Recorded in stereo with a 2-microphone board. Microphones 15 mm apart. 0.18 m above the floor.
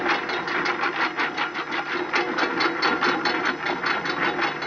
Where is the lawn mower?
Centre (ahead or behind); by 4.7 s 30° left (ahead or behind).